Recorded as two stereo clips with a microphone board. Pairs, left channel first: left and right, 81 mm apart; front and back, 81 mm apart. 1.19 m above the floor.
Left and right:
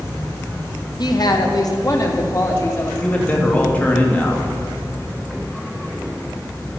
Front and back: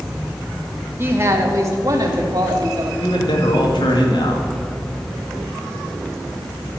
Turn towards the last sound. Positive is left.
turn(degrees=20)